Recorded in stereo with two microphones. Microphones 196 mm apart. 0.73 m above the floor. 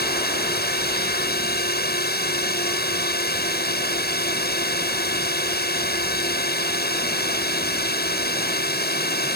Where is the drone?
55° left (ahead or behind).